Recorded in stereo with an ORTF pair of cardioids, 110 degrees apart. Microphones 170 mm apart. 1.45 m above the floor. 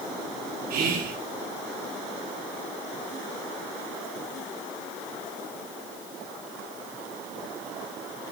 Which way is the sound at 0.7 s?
60° right.